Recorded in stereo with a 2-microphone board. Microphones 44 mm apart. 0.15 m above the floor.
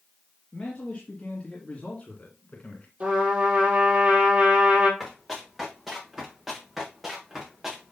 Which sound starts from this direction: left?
A man speaking, at 0.5 s.